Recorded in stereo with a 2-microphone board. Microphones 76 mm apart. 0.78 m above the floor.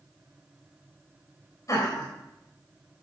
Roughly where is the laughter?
Left.